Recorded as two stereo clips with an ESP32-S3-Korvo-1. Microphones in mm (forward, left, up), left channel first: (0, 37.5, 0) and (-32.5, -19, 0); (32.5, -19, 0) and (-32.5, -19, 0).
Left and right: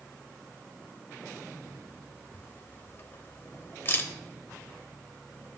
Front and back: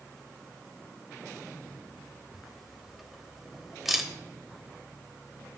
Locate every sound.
2.3 s a camera shutter: 95° left, 1.0 m